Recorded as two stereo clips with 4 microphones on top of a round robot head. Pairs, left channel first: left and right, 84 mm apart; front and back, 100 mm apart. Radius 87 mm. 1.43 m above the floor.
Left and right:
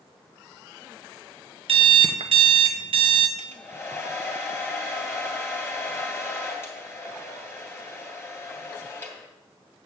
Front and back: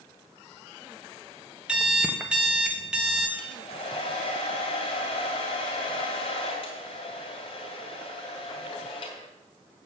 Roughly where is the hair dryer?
Ahead left.